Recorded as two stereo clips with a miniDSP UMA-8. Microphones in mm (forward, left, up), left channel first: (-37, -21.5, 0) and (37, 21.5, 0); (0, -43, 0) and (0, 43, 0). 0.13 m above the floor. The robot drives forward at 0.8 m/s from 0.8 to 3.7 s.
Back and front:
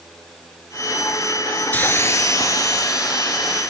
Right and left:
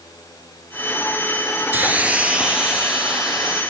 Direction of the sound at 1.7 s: 150° left.